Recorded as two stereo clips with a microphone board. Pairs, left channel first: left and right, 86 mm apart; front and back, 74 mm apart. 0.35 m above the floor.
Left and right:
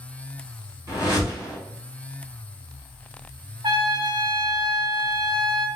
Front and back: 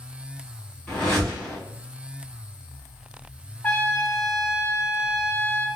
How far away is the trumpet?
About 0.6 m.